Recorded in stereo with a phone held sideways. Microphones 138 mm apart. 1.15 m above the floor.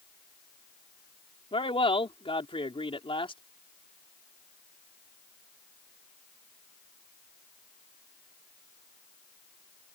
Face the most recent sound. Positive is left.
turn(degrees=40)  # may be behind; listen again after turning